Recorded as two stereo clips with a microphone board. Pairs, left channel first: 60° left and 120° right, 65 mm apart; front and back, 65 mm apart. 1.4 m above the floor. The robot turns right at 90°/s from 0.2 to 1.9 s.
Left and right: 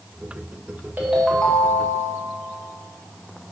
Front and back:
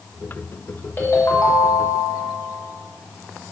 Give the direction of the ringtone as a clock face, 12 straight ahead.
2 o'clock.